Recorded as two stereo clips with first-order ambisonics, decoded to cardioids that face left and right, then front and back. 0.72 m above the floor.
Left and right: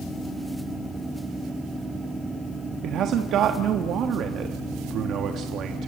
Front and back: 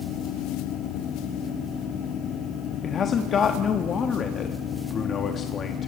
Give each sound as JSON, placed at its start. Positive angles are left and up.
{"t": 2.8, "sound": "a man speaking", "azimuth_deg": -55, "distance_m": 1.0}